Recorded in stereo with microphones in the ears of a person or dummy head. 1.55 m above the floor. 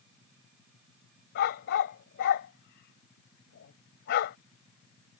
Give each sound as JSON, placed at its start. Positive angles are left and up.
{"t": 1.4, "sound": "a dog barking", "side_deg": 55}